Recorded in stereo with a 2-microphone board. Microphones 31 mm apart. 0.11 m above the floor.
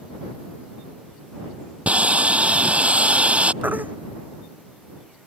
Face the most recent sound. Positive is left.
turn(degrees=-65)  # may be behind; listen again after turning